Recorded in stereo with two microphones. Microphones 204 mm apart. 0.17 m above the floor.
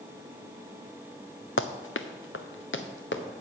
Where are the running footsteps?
75° left (ahead or behind), 0.7 m; by 3.2 s 65° left (ahead or behind), 1.5 m.